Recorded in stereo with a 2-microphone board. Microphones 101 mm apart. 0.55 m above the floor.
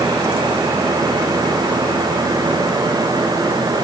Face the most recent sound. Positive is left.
No sound to turn to.